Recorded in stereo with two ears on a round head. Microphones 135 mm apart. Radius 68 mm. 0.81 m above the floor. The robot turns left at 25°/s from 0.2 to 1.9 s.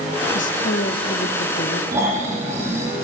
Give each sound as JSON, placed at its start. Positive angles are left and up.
{"t": 0.3, "sound": "a woman speaking", "azimuth_deg": 110, "distance_m": 1.3}
{"t": 1.9, "sound": "snoring", "side_deg": -15, "distance_m": 5.5}